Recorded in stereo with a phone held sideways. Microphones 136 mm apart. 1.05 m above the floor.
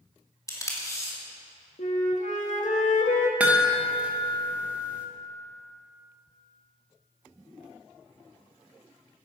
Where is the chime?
10° right (ahead or behind), 1.4 m.